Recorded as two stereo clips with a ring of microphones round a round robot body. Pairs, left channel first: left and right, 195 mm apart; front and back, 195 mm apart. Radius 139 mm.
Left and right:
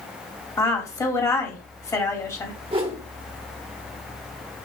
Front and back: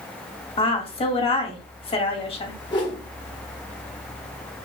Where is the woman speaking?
30° left, 1.4 m.